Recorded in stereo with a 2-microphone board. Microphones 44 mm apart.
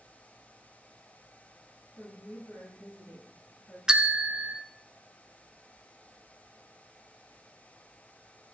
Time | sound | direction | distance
2.0 | a woman speaking | 65° left (ahead or behind) | 6.5 m
3.9 | a bell | 15° right (ahead or behind) | 0.5 m